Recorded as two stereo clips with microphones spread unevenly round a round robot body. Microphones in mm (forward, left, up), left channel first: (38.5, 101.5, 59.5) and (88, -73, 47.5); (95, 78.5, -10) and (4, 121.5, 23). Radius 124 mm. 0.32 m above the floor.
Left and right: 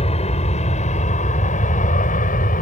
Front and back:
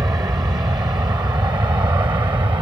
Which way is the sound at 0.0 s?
110° left.